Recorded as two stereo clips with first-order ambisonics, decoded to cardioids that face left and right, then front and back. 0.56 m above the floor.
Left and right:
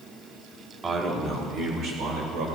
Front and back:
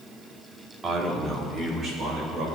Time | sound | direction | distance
0.8 | a man speaking | 140° right | 1.1 m